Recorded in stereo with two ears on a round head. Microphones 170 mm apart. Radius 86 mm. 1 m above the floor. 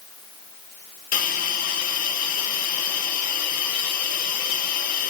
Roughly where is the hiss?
Left.